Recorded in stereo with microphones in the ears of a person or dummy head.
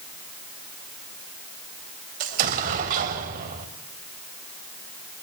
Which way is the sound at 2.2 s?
45° right (ahead or behind).